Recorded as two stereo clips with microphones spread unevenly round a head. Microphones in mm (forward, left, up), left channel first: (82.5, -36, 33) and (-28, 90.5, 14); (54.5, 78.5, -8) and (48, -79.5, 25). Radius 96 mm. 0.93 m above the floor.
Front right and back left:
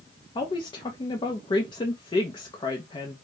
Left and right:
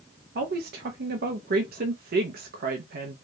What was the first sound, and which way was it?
A woman speaking, 110° right.